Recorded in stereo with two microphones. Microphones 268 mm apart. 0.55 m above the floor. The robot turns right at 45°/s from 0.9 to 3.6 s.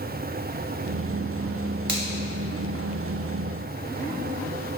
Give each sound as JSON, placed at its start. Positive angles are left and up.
{"t": 1.9, "sound": "a finger snap", "side_deg": -45, "distance_m": 2.5}